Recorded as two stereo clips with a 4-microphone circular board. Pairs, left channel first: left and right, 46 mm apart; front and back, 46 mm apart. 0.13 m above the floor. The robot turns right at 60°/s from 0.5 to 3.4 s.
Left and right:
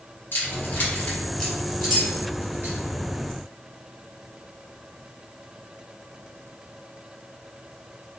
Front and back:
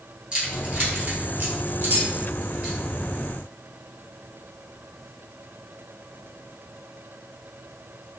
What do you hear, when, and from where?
0.3 s keys jangling: 110° left, 2 m; by 2.8 s 115° right, 2 m